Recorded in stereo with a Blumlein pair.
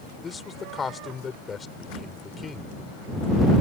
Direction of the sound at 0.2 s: 15° left.